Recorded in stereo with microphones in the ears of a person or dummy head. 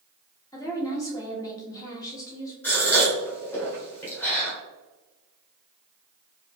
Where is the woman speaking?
20° left (ahead or behind), 1.5 m.